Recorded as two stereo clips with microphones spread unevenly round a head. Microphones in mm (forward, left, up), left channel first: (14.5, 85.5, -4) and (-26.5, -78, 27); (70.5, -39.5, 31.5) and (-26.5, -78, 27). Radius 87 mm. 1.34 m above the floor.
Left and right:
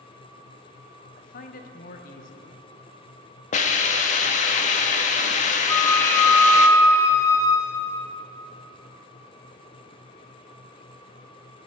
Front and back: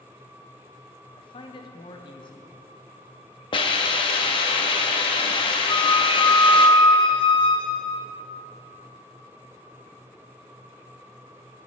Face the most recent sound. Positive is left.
turn(degrees=-5)